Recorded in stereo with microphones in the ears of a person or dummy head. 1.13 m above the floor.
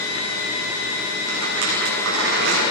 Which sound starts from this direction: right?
A rattle, at 1.3 s.